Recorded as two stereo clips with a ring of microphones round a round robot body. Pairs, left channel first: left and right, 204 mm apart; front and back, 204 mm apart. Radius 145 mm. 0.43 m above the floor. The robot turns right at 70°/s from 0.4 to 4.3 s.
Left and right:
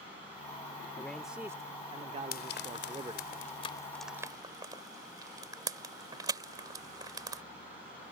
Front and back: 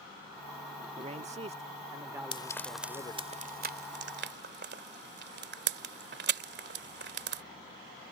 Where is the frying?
60° left; by 7.4 s 160° right.